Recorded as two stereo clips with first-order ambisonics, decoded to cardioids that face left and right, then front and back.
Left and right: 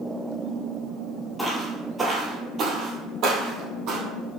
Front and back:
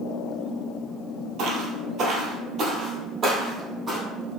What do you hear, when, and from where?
1.4 s footsteps: 175° left, 1.2 m; by 4.0 s 100° right, 1.9 m